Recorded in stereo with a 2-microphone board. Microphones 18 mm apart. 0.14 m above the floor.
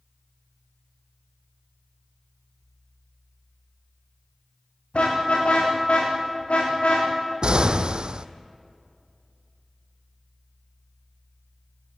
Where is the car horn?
85° left, 9 m.